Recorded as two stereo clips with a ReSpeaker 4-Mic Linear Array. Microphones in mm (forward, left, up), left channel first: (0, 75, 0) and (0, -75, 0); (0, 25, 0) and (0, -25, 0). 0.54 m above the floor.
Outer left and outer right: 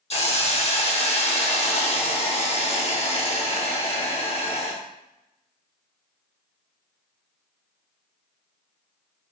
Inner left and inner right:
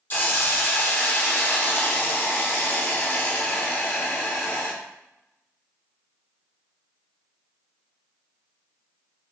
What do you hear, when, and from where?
0.1 s a hiss: 40° left (ahead or behind), 0.7 m